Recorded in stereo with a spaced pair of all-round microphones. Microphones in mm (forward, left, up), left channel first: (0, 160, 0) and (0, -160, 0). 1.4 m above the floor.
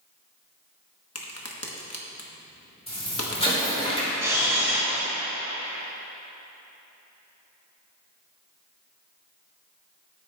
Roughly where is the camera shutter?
Centre.